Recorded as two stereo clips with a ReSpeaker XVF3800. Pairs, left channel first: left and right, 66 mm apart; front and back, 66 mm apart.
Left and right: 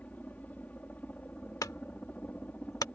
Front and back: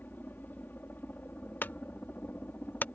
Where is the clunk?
60° left.